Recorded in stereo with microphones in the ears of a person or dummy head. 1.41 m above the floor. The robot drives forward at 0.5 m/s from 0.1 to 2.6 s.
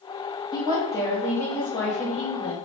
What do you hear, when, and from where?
0.5 s a woman speaking: 20° left (ahead or behind), 0.5 m; by 2.5 s 10° left (ahead or behind), 1.4 m